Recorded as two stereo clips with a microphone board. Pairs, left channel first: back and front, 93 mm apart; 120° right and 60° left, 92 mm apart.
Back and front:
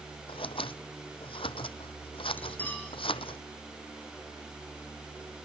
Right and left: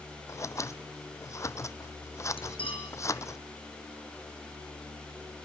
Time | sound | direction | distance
0.3 | scissors | 175° right | 0.7 m
2.4 | cutlery clinking | 110° right | 4.5 m